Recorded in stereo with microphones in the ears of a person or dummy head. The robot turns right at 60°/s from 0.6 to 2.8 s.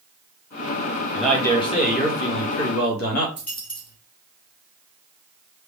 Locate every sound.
1.1 s a man speaking: straight ahead, 1.7 m; by 3.3 s 100° left, 1.7 m
3.4 s a dropped coin: 10° left (ahead or behind), 1.8 m